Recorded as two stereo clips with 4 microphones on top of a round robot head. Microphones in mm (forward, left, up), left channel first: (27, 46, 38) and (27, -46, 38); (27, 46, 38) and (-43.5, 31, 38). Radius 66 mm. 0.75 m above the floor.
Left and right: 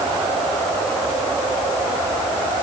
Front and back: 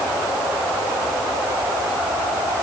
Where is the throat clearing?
No throat clearing in this recording.